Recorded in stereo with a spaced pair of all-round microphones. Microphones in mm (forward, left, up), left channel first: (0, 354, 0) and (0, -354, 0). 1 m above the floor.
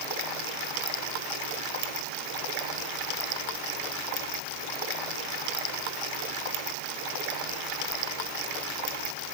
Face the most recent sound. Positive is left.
No sound to turn to.